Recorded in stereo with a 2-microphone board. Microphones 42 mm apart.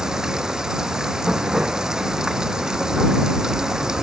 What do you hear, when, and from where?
0.0 s running water: 15° right (ahead or behind)